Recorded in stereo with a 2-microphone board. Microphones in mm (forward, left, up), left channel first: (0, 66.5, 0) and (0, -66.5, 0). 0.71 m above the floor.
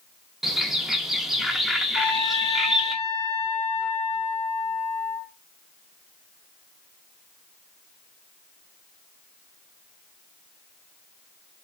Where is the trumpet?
55° left (ahead or behind), 1.4 m.